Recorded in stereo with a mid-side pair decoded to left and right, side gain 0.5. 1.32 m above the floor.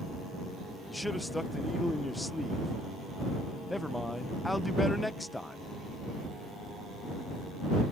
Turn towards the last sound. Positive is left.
turn(degrees=10)